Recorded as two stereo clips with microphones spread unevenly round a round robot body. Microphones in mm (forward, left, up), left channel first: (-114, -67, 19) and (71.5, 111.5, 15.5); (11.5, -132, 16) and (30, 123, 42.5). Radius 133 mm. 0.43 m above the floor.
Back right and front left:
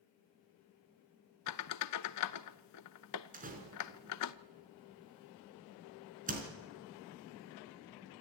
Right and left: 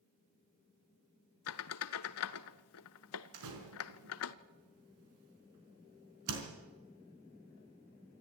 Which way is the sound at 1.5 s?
130° right.